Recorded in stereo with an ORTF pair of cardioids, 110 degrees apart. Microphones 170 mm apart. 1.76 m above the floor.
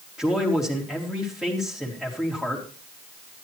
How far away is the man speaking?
About 3 m.